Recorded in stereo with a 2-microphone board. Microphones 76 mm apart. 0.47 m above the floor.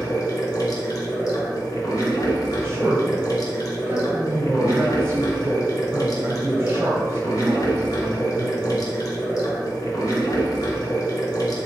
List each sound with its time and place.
0.0 s running water: 65° left (ahead or behind), 0.8 m
2.6 s a man speaking: 40° right (ahead or behind), 0.9 m